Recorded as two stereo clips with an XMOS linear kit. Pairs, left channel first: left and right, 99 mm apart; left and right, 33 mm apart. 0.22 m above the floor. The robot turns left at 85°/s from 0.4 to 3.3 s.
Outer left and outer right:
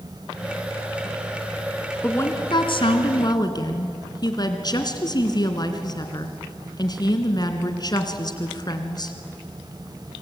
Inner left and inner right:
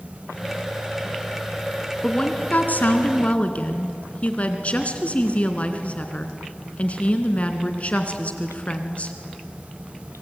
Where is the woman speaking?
160° left, 2.5 m; by 9.2 s 50° left, 2.5 m.